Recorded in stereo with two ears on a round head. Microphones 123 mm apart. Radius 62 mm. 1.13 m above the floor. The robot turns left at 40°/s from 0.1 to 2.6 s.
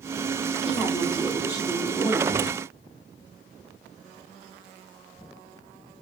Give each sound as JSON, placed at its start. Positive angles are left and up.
{"t": 0.6, "sound": "a woman speaking", "azimuth_deg": -170, "distance_m": 5.0}